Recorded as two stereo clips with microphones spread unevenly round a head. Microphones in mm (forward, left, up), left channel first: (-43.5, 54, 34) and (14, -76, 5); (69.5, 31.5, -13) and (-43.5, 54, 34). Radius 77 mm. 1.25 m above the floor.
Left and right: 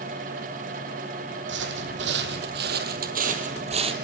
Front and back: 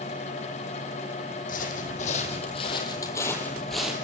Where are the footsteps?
60° right, 3.5 m; by 4.0 s 120° right, 2.5 m.